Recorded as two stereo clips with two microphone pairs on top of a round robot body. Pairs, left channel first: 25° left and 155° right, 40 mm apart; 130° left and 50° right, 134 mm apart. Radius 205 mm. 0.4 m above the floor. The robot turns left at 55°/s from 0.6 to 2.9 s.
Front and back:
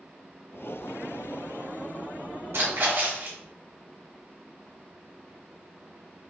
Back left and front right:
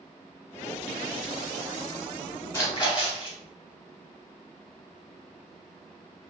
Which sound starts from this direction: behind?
A splash, at 2.5 s.